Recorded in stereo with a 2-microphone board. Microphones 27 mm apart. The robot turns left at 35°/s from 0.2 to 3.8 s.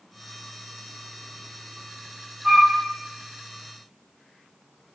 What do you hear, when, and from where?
2.4 s a flute: 15° right (ahead or behind), 0.9 m; by 2.8 s 5° right (ahead or behind), 0.9 m